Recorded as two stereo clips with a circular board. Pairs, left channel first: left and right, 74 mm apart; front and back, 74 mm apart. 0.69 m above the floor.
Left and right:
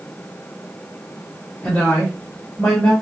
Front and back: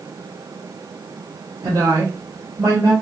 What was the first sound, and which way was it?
A woman speaking, 155° left.